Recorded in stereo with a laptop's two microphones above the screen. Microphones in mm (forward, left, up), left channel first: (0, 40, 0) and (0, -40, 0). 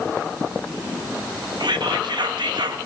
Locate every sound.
1.6 s whispering: 70° right (ahead or behind), 1.5 m